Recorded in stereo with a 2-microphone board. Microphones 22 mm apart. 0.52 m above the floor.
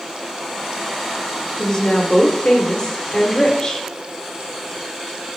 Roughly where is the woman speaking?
Left.